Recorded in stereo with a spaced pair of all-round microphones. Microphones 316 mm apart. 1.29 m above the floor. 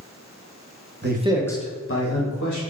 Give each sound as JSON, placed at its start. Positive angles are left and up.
{"t": 1.0, "sound": "a man speaking", "side_deg": -35, "distance_m": 0.8}